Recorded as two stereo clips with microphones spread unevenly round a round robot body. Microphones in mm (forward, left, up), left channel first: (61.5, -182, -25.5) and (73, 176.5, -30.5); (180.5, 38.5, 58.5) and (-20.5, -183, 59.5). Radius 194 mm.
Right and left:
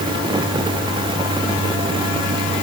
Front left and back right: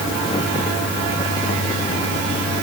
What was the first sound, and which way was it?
Only background noise.